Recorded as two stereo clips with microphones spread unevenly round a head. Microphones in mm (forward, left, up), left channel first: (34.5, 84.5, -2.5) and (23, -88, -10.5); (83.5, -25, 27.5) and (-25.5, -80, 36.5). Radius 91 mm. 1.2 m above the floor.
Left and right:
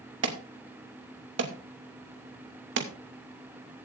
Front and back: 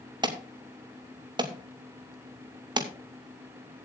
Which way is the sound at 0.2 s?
100° right.